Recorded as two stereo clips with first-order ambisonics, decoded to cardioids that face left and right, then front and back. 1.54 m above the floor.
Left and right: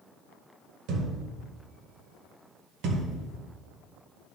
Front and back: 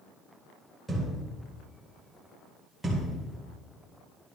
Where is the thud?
95° right, 1.9 m.